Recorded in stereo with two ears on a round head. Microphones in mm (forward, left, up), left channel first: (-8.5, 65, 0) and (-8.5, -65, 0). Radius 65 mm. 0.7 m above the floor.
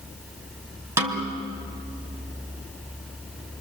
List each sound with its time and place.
1.0 s a snare drum: 15° right (ahead or behind), 2.5 m